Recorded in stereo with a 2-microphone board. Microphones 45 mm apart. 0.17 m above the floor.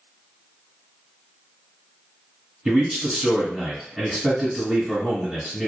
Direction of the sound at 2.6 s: 5° right (ahead or behind).